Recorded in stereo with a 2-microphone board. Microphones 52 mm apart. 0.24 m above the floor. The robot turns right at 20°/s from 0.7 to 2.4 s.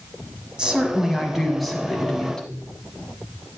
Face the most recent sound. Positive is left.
turn(degrees=15)